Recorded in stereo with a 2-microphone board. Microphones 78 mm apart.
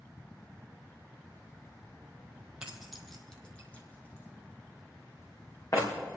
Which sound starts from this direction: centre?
Keys jangling, at 2.6 s.